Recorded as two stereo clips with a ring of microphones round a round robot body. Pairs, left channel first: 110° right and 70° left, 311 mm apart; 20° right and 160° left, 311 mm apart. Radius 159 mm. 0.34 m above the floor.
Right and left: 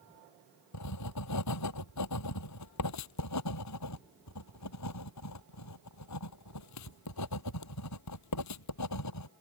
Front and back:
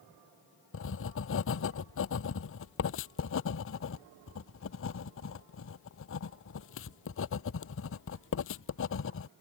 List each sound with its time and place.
0.7 s writing: 75° right